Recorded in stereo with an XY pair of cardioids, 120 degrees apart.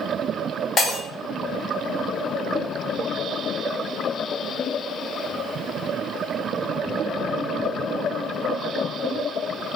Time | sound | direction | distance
0.8 | breaking glass | 50° left | 1.4 m